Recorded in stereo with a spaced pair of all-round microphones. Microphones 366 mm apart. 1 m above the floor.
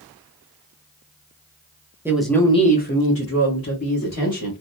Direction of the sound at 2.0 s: 5° right (ahead or behind).